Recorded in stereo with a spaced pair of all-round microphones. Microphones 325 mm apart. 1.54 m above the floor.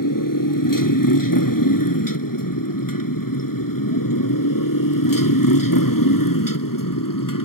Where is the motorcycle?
75° left (ahead or behind); by 7.5 s 80° left.